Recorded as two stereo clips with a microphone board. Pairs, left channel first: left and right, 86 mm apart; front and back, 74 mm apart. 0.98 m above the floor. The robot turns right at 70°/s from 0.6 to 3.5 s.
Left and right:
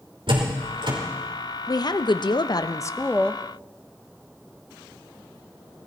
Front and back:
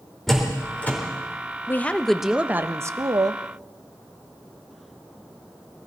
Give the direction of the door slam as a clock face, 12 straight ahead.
3 o'clock.